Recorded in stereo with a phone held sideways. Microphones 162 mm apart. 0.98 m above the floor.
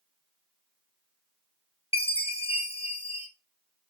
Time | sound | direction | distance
1.9 | a chime | 35° left (ahead or behind) | 1.0 m